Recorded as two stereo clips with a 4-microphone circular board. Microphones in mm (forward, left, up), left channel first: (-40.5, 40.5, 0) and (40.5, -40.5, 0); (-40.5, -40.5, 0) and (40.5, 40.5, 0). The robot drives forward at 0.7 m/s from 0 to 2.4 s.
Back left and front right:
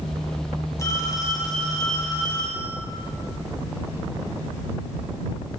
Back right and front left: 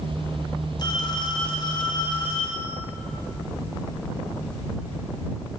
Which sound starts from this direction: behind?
A phone ringing, at 0.8 s.